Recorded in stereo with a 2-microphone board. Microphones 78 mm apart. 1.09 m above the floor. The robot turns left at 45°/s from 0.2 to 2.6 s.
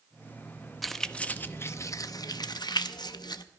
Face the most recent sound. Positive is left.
turn(degrees=70)  # may be behind; listen again after turning